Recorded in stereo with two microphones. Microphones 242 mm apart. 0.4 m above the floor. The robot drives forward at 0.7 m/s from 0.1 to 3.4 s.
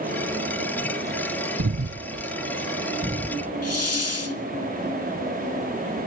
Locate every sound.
1.6 s breathing: 60° right (ahead or behind), 0.5 m; by 3.5 s 25° right (ahead or behind), 1.1 m
3.6 s a hiss: 75° left (ahead or behind), 1.1 m